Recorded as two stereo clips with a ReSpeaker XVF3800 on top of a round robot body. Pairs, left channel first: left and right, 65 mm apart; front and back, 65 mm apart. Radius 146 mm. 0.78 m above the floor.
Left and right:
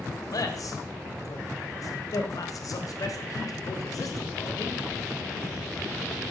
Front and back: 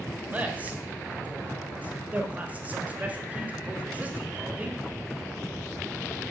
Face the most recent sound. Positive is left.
turn(degrees=115)